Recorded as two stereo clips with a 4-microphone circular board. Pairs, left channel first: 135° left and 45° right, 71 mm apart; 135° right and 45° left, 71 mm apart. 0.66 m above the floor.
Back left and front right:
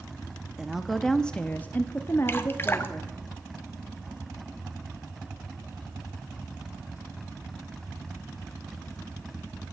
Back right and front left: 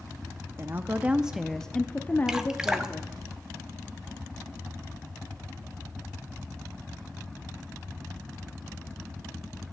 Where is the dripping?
115° left, 0.8 m.